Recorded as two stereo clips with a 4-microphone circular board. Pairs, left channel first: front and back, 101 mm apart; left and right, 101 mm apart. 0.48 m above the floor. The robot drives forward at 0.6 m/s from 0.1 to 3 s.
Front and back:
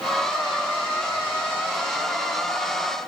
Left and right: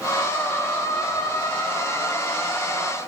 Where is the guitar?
No guitar in this recording.